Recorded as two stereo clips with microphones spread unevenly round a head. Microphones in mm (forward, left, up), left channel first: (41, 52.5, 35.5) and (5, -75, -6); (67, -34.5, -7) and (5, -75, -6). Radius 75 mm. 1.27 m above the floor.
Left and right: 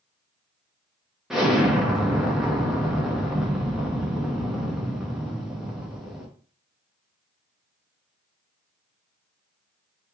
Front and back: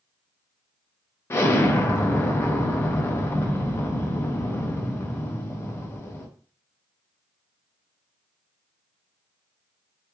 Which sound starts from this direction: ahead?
An explosion, at 1.3 s.